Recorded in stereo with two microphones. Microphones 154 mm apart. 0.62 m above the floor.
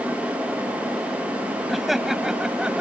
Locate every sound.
1.7 s laughter: centre (ahead or behind); by 2.8 s 5° right (ahead or behind)